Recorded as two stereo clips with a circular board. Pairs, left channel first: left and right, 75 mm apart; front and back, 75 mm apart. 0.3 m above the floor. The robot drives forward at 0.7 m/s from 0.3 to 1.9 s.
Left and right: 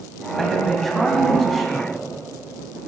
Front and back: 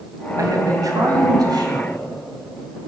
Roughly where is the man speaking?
Behind.